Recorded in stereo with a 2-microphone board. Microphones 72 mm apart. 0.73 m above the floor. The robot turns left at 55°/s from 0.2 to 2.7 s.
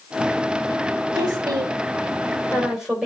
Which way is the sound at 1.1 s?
75° right (ahead or behind).